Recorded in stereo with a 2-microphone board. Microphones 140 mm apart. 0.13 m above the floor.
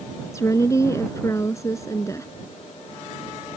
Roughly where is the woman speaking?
Left.